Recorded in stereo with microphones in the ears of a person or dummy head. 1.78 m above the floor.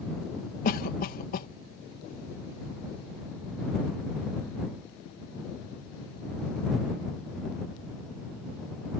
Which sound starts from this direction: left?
A cough, at 0.7 s.